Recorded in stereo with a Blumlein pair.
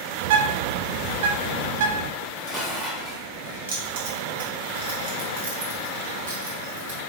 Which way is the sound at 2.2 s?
25° left.